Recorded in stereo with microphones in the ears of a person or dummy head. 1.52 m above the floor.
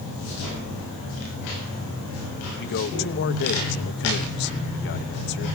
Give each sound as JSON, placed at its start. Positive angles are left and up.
{"t": 2.6, "sound": "a man speaking", "side_deg": 50, "distance_m": 1.1}